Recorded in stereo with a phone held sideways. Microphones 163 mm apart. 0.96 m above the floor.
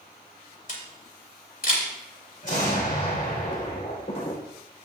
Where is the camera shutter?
55° left (ahead or behind), 3 m.